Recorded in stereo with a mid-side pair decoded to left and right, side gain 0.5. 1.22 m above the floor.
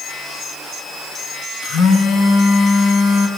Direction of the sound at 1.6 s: 55° left.